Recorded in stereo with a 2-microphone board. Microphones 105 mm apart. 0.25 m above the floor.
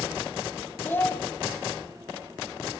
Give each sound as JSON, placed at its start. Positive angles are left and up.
{"t": 0.8, "sound": "a child speaking", "side_deg": 20, "distance_m": 0.7}